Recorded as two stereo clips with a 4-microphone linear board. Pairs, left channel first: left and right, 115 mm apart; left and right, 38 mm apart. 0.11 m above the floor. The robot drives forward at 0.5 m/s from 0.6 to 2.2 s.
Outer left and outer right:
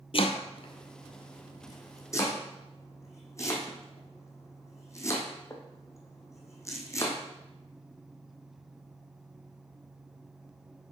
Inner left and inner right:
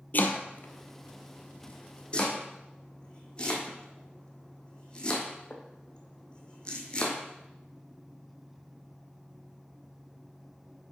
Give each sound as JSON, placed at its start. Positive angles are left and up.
{"t": 0.1, "sound": "chopping", "side_deg": 55, "distance_m": 0.7}